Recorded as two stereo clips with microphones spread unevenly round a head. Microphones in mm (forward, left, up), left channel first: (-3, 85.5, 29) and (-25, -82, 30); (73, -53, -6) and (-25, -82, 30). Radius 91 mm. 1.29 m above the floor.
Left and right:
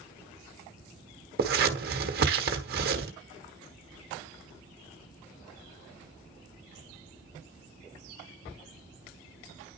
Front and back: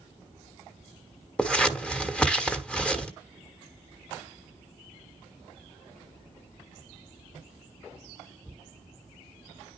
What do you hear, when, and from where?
1.4 s scissors: 80° right, 1.3 m